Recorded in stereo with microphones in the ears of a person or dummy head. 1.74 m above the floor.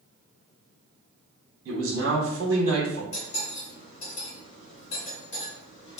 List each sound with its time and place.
1.6 s a man speaking: 70° right (ahead or behind), 1.1 m
3.1 s cutlery clinking: 40° left (ahead or behind), 1.9 m